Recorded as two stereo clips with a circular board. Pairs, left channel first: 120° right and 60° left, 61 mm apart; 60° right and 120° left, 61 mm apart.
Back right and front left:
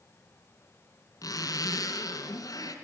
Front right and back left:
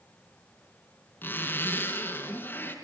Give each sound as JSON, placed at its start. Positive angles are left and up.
{"t": 1.2, "sound": "a zipper", "azimuth_deg": -115, "distance_m": 4.0}